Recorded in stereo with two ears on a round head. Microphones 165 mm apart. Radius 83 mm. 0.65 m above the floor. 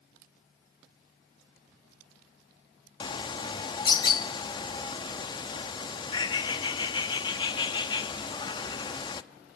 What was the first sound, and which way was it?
A bird, 25° left (ahead or behind).